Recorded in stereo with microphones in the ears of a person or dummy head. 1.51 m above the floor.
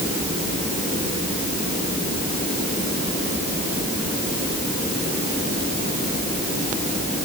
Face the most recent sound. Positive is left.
No sound to turn to.